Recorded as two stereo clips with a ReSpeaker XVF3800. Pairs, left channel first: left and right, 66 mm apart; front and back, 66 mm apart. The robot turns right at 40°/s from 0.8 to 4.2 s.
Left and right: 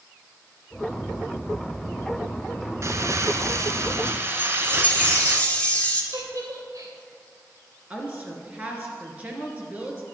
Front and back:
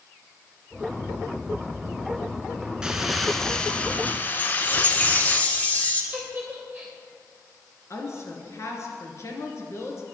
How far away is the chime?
About 1.8 m.